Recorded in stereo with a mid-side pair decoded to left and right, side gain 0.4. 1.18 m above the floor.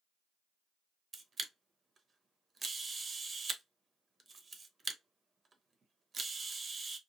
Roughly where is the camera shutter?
Ahead right.